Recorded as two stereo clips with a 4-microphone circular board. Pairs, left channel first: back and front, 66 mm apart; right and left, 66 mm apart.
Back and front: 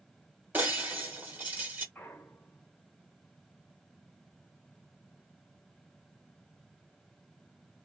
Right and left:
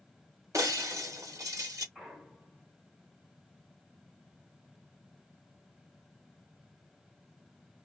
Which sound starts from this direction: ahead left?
Breaking glass, at 0.5 s.